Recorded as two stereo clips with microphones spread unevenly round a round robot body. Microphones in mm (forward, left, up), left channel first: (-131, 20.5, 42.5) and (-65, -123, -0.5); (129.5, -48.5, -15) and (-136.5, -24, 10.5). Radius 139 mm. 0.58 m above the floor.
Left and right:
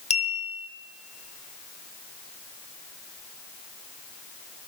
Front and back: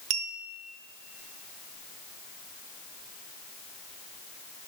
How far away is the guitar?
I don't hear a guitar.